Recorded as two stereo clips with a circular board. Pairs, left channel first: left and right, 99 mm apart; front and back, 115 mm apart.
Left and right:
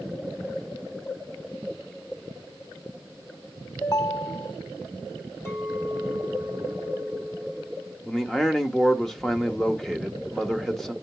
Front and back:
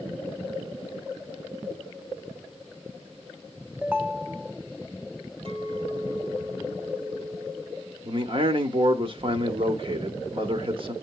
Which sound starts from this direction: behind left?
A clink, at 5.5 s.